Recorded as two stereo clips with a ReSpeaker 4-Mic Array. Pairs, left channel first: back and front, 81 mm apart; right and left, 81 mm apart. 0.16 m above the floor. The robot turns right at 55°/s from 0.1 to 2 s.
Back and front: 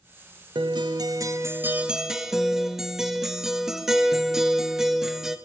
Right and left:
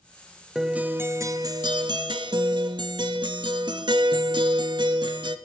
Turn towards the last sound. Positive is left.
turn(degrees=85)